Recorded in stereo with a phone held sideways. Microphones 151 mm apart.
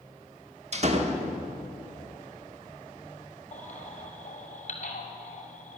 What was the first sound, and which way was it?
A door slam, 45° right (ahead or behind).